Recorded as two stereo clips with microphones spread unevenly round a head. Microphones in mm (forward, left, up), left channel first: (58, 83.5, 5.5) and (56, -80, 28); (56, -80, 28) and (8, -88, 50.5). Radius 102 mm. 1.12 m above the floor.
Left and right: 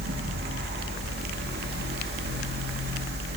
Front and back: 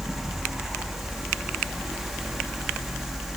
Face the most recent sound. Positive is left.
turn(degrees=-75)